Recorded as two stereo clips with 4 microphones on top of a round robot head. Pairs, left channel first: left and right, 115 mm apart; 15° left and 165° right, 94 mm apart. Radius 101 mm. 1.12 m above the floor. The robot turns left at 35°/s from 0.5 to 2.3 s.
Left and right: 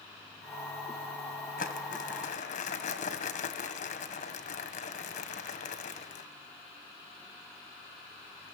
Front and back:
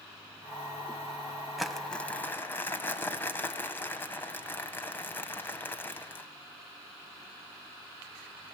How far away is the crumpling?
About 1.7 m.